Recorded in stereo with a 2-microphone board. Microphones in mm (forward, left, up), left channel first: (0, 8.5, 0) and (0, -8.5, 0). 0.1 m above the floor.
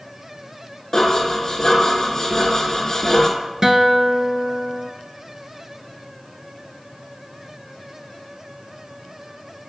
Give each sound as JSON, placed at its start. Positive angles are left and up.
{"t": 0.9, "sound": "dishes clattering", "side_deg": 25, "distance_m": 0.9}
{"t": 3.6, "sound": "a guitar", "side_deg": -25, "distance_m": 0.5}